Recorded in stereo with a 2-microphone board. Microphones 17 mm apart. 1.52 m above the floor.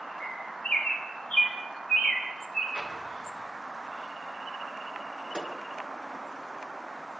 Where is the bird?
75° left (ahead or behind), 5 m.